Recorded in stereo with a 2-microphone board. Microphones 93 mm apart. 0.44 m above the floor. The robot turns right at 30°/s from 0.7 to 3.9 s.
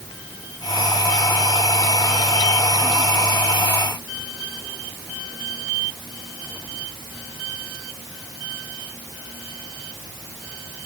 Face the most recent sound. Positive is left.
No sound to turn to.